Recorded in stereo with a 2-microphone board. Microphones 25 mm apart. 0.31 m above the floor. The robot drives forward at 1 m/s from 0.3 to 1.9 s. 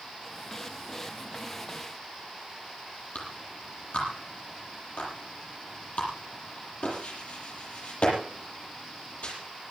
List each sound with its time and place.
3.1 s a clap: 60° left (ahead or behind), 8.5 m